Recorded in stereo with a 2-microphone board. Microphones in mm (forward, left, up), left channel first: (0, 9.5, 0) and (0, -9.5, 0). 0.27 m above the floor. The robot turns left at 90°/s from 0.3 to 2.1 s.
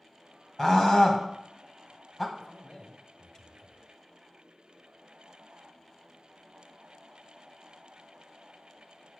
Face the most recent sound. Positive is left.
turn(degrees=15)  # may be behind; listen again after turning